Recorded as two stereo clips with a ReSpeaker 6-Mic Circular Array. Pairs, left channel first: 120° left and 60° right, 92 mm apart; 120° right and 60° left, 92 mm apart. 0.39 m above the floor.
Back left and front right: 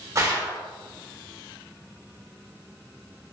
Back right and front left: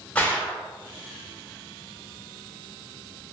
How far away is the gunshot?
About 0.7 m.